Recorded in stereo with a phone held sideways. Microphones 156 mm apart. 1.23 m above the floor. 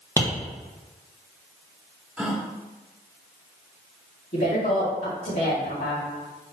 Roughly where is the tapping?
Left.